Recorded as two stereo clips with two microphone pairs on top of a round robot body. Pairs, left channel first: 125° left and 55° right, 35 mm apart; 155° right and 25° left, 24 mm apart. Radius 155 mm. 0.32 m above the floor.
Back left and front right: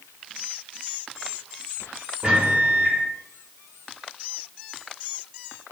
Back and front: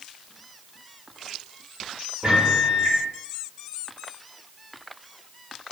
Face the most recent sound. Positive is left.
turn(degrees=-5)